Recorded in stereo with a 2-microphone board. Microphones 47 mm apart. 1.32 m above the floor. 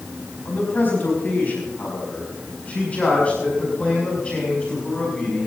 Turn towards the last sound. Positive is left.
turn(degrees=20)  # may be behind; listen again after turning